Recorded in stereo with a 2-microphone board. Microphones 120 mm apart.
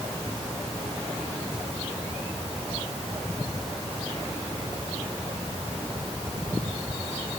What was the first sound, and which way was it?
Only background noise.